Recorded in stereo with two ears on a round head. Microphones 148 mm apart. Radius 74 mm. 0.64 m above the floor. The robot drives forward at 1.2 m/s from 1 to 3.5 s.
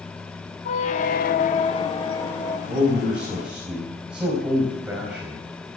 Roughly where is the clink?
I don't hear a clink.